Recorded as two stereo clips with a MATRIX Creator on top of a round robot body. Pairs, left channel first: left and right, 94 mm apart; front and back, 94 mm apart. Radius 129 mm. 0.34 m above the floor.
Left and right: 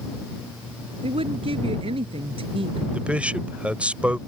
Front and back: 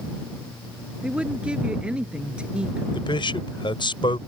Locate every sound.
1.0 s a woman speaking: 100° right
2.9 s a man speaking: 15° right